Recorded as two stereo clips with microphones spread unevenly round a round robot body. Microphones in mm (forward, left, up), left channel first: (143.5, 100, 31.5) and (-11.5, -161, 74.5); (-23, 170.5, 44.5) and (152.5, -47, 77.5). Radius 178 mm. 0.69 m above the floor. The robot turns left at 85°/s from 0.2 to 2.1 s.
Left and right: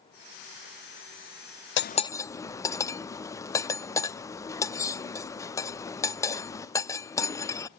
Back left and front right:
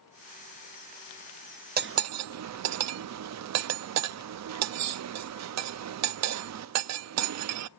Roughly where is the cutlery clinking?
Ahead.